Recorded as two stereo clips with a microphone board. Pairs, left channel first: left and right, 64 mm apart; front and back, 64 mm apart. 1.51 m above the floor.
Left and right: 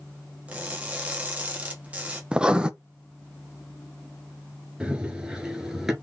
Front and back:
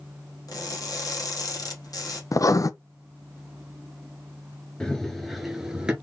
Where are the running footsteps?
50° right, 1.5 m; by 5.9 s 155° right, 1.5 m.